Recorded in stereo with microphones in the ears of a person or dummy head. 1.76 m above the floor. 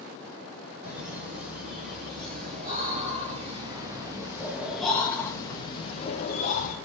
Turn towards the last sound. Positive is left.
turn(degrees=45)  # may be behind; listen again after turning